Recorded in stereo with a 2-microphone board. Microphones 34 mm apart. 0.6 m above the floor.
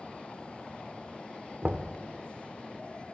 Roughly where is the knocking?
Right.